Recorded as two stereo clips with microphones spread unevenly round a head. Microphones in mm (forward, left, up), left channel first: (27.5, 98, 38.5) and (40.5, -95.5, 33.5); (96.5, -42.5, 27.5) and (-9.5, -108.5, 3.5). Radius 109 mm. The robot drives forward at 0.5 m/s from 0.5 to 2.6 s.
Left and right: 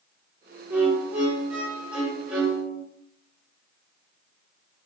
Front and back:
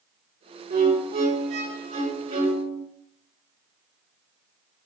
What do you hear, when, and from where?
0.7 s a violin: 170° right, 4 m